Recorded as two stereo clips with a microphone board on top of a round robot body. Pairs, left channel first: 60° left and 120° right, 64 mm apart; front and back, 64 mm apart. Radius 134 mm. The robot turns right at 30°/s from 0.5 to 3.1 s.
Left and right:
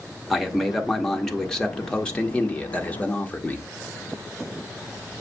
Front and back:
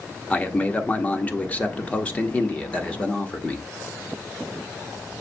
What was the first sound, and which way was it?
A man speaking, 35° right.